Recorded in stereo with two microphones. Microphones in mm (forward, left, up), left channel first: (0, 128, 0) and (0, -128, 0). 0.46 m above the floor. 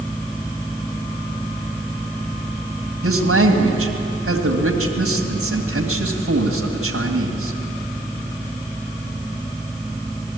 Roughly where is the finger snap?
I don't hear a finger snap.